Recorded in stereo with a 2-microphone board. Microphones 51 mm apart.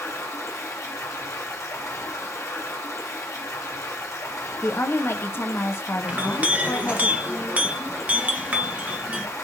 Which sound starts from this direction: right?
A clink, at 6.1 s.